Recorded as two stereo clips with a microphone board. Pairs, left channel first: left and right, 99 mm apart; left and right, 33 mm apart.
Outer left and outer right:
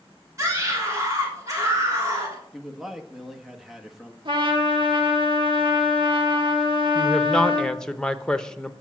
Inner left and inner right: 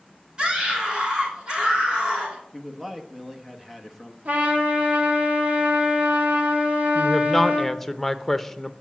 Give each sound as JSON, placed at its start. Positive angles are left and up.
{"t": 0.4, "sound": "a scream", "side_deg": -30, "distance_m": 3.0}
{"t": 2.5, "sound": "a man speaking", "side_deg": -5, "distance_m": 1.1}
{"t": 4.2, "sound": "a trumpet", "side_deg": -55, "distance_m": 2.0}
{"t": 7.0, "sound": "a woman speaking", "side_deg": 5, "distance_m": 0.6}